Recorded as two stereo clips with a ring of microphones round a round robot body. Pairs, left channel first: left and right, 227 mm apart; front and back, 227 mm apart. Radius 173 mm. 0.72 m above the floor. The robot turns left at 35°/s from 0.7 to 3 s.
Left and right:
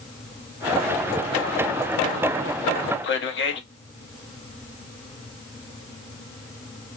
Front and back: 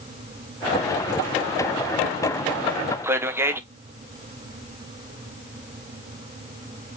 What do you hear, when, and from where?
3.0 s a man speaking: 100° left, 0.8 m